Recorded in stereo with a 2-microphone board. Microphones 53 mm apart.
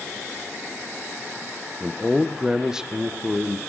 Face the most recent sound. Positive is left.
turn(degrees=-15)  # may be behind; listen again after turning